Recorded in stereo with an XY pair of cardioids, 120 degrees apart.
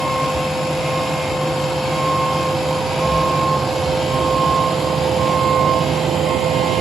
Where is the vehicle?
5° right; by 6.8 s 60° right.